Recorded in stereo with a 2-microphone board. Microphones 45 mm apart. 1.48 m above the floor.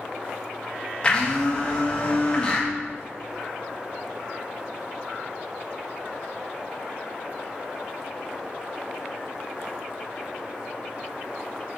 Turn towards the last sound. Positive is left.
turn(degrees=25)  # may be behind; listen again after turning